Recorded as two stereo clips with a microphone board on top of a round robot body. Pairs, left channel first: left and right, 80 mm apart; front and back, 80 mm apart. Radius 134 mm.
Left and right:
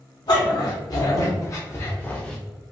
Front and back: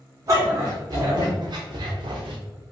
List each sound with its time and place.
0.3 s a dog barking: 130° left, 2 m; by 2.4 s 175° left, 0.7 m